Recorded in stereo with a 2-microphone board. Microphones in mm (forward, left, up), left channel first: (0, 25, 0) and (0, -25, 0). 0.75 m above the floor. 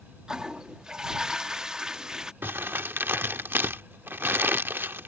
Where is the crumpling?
50° right (ahead or behind).